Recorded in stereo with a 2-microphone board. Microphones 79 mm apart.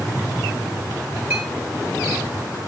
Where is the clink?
25° right (ahead or behind), 8 m.